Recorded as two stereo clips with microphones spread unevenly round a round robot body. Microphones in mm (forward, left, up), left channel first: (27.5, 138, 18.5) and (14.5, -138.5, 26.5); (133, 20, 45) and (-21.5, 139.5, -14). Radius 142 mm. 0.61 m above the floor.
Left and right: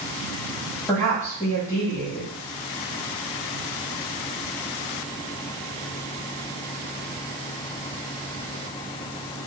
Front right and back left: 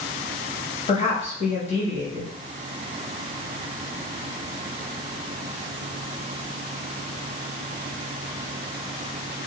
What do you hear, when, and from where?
0.9 s a woman speaking: 20° left, 1.2 m